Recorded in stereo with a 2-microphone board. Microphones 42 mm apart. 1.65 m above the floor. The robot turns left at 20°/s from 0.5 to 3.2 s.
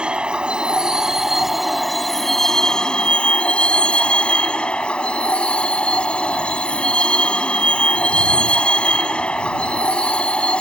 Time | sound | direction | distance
0.0 | a vehicle | 155° right | ?